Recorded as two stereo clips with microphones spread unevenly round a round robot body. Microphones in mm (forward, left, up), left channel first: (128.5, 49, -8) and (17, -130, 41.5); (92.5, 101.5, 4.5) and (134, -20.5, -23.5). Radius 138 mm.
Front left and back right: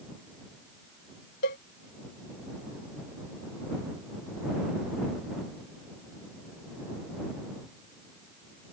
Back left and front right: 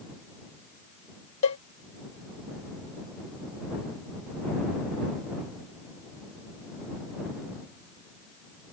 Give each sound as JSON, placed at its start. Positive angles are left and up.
{"t": 1.4, "sound": "a cowbell", "azimuth_deg": 120}